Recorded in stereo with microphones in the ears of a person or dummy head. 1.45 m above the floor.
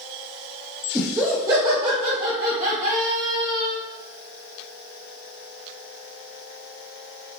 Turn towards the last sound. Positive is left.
turn(degrees=-45)  # may be behind; listen again after turning